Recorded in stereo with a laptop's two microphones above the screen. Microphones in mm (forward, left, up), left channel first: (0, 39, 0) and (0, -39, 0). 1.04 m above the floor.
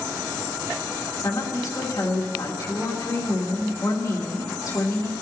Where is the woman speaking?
45° left (ahead or behind), 3 m.